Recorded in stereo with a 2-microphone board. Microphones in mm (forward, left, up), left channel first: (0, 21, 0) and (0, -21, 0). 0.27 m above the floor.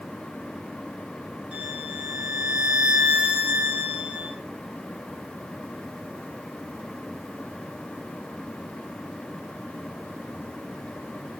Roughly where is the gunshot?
No gunshot in this recording.